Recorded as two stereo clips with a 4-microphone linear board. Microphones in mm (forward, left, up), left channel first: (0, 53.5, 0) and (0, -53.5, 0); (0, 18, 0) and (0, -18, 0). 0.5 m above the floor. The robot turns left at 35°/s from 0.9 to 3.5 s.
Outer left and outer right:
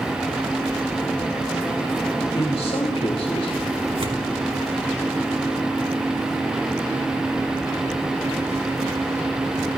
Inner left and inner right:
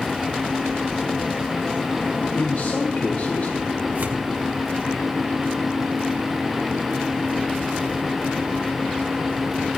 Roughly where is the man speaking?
Left.